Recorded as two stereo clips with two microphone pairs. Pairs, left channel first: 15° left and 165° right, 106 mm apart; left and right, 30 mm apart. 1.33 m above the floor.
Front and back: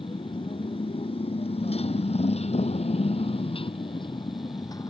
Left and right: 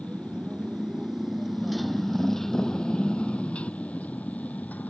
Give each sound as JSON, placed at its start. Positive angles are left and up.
{"t": 0.0, "sound": "a motorcycle", "azimuth_deg": -20}